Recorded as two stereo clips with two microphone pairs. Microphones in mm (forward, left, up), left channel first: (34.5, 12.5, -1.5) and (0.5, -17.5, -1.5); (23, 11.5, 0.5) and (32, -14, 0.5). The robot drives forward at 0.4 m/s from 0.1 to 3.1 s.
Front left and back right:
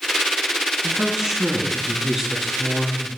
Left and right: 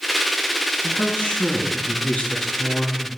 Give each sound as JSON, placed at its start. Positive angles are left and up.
{"t": 0.8, "sound": "a woman speaking", "azimuth_deg": 145, "distance_m": 5.0}